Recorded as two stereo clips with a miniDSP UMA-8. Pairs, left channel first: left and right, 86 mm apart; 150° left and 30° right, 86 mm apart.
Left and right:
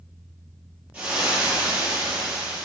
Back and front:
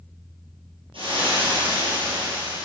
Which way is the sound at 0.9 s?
15° right.